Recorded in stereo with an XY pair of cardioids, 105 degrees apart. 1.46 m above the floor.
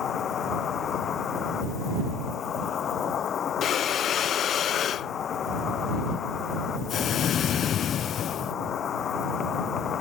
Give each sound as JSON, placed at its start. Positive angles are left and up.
{"t": 0.0, "sound": "an insect", "azimuth_deg": 55}
{"t": 3.6, "sound": "breathing", "azimuth_deg": 60}